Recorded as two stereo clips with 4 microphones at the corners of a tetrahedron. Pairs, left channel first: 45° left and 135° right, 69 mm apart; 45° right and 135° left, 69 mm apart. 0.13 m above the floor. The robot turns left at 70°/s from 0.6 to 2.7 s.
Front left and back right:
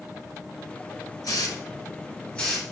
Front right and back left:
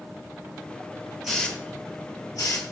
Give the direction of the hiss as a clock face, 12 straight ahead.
10 o'clock.